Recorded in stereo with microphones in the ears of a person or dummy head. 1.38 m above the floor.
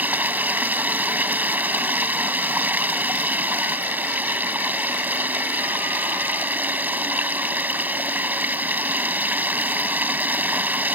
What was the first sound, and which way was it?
Running water, 15° right (ahead or behind).